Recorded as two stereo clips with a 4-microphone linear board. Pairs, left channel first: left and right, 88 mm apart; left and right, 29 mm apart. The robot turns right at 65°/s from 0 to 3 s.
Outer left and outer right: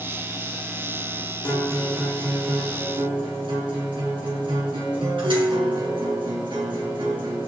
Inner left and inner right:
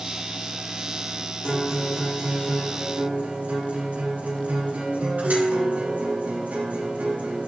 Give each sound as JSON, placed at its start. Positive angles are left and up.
{"t": 1.4, "sound": "a guitar", "azimuth_deg": 155, "distance_m": 4.5}